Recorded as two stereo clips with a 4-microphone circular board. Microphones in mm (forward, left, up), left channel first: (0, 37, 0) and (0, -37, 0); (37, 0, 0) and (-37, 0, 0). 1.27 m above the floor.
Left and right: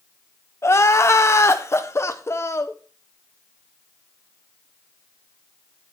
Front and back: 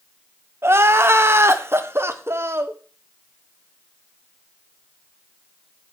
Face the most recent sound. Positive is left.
turn(degrees=135)